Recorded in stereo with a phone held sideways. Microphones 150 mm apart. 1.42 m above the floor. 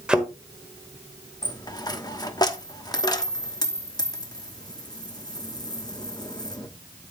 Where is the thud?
5° right (ahead or behind), 1.4 m.